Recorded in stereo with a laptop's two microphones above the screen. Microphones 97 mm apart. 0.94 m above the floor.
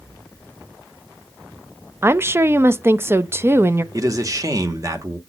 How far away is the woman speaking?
About 0.5 m.